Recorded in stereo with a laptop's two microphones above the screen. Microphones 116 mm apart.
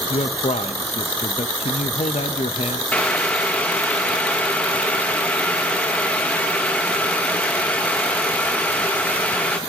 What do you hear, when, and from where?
0.1 s a man speaking: 70° left (ahead or behind), 0.8 m
2.9 s boiling: 10° left (ahead or behind), 1.0 m